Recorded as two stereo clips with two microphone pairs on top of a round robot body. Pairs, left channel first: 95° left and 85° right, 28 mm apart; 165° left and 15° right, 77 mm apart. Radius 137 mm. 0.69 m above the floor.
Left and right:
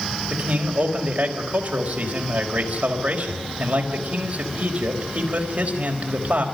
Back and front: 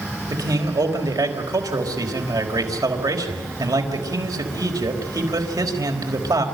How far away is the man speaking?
About 4.5 m.